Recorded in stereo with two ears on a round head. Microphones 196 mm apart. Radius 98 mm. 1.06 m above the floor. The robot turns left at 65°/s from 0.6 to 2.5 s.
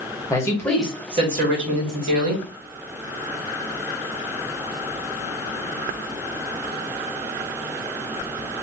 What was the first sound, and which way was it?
A man speaking, 10° left.